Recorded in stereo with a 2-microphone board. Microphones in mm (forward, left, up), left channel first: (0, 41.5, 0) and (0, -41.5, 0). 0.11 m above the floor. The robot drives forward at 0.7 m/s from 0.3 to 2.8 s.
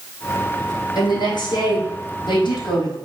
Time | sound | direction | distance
0.9 | a woman speaking | 55° left (ahead or behind) | 3.5 m